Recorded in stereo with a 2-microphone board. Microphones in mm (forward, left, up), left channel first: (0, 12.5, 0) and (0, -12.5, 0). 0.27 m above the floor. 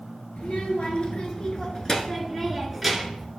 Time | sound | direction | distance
0.4 | a child speaking | 55° left (ahead or behind) | 2.5 m